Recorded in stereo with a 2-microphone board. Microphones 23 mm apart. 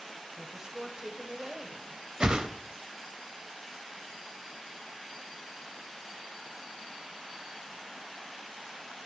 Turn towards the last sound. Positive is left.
turn(degrees=-45)  # may be behind; listen again after turning